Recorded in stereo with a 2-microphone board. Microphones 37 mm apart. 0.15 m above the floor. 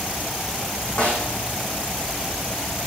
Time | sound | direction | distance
1.0 | a snare drum | 35° left (ahead or behind) | 5.5 m